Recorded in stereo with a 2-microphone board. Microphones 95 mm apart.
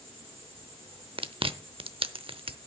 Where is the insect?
80° right, 6 m.